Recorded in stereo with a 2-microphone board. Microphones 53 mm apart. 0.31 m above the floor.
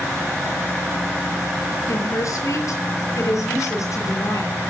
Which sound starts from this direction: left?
A woman speaking, at 1.9 s.